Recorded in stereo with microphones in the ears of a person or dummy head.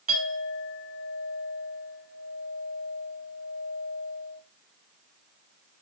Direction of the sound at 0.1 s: 50° right (ahead or behind).